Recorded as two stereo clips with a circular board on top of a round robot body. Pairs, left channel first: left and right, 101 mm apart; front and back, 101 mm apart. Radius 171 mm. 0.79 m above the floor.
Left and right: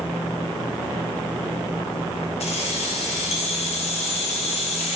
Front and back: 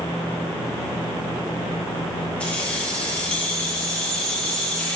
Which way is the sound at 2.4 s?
80° left.